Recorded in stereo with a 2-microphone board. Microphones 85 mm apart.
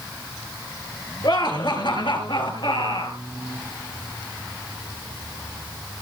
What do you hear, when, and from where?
1.2 s laughter: 55° left (ahead or behind), 3.5 m; by 3.2 s 70° left (ahead or behind), 4 m